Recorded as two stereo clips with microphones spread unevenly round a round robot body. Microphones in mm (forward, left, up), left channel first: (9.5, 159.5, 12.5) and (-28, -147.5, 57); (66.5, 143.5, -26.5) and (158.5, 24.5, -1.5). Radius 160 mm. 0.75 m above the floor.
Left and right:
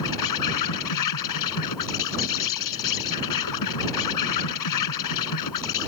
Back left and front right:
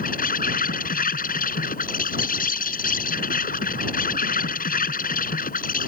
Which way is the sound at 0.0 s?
105° left.